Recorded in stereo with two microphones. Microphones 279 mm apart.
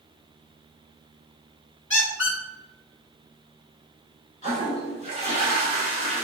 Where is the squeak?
45° left (ahead or behind), 1.1 m.